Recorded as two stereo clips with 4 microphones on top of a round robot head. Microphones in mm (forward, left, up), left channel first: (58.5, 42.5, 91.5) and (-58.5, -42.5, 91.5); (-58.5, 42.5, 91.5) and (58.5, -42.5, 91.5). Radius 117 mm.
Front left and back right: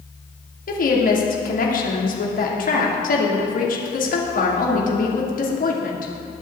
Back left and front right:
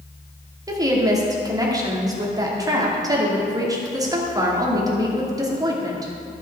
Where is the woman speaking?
25° left, 2.5 m.